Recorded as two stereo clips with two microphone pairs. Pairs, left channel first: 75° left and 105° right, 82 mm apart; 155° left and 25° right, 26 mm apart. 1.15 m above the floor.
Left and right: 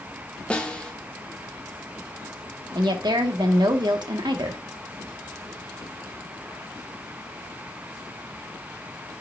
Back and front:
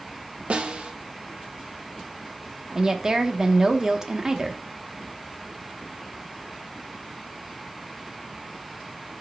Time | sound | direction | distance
0.5 | a snare drum | 5° left | 1.0 m
2.8 | a woman speaking | 85° right | 1.1 m